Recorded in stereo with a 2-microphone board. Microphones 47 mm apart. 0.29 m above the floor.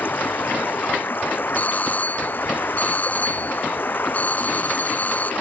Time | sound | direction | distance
0.0 | running water | 45° left (ahead or behind) | ?
1.6 | a doorbell | 35° left (ahead or behind) | ?